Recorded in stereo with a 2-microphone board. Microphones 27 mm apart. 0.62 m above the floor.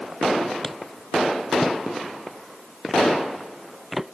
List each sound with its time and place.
0.6 s footsteps: 15° left (ahead or behind); by 4.1 s 10° right (ahead or behind)